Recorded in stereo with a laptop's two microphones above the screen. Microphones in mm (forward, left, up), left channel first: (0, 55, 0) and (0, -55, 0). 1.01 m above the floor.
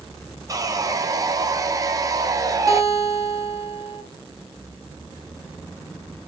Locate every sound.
0.5 s sawing: 30° right (ahead or behind), 0.6 m
2.7 s a guitar: 30° right (ahead or behind), 3 m